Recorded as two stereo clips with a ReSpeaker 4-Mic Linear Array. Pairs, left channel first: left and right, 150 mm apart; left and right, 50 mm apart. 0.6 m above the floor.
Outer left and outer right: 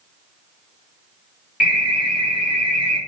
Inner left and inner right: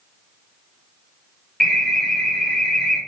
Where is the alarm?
5° right (ahead or behind), 1.8 m.